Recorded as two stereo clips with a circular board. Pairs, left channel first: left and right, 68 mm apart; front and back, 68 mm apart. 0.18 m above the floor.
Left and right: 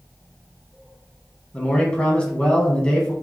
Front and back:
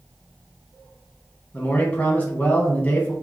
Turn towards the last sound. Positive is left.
turn(degrees=35)